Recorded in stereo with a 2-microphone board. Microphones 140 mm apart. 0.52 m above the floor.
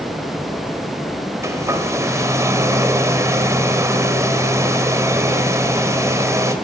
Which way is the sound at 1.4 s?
20° right (ahead or behind).